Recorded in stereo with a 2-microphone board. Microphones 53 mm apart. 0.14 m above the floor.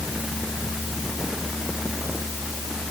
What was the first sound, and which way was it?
Only background noise.